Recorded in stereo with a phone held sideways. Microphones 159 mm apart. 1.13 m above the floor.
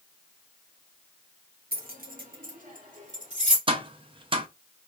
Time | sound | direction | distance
1.7 | keys jangling | 80° right | 1.2 m
3.7 | tapping | 35° right (ahead or behind) | 0.7 m